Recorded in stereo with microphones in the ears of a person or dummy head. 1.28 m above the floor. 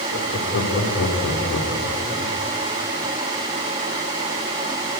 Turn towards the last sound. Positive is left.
turn(degrees=80)